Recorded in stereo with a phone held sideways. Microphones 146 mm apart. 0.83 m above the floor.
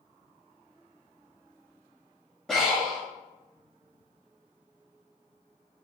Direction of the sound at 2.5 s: 5° left (ahead or behind).